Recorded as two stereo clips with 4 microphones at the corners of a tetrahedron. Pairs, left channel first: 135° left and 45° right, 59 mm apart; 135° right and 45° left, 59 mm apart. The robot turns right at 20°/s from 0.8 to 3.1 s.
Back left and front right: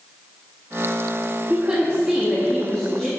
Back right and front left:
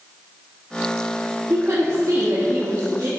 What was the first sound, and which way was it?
A woman speaking, 20° left.